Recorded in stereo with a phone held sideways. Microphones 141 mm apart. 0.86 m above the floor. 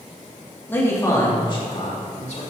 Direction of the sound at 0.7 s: 15° left (ahead or behind).